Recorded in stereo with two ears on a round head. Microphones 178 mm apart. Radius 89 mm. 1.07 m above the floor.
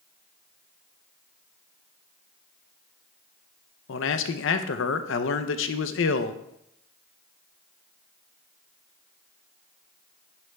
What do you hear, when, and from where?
3.9 s a man speaking: 65° left (ahead or behind), 0.7 m